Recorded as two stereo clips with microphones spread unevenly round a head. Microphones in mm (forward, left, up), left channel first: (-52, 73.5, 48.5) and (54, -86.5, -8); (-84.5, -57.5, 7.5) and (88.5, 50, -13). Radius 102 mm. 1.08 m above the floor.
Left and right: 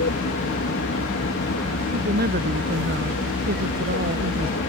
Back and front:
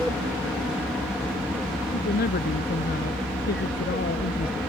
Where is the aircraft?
120° left.